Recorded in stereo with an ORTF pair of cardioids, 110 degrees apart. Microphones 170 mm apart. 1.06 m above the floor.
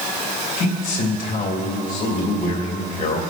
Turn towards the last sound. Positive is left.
turn(degrees=65)